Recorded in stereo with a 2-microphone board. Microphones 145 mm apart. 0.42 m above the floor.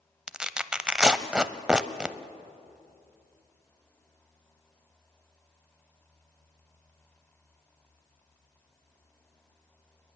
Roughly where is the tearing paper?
Centre.